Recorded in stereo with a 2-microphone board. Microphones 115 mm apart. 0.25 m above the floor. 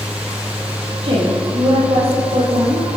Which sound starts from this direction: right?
A woman speaking, at 1.0 s.